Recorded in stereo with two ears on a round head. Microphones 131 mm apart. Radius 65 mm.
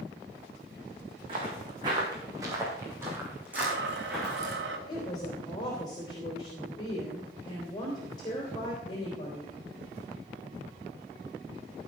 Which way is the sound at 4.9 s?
30° left (ahead or behind).